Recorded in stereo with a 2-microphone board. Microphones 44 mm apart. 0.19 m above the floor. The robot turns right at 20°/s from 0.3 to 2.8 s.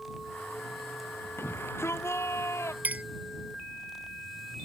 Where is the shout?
60° left (ahead or behind); by 2.7 s 85° left.